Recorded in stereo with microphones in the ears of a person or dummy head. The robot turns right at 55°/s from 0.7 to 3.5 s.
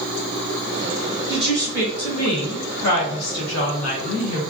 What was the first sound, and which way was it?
A woman speaking, 10° right.